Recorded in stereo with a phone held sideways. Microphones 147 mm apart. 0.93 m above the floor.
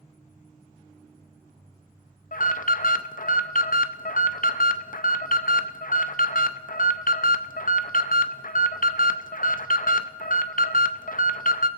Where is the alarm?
70° left (ahead or behind), 0.5 m.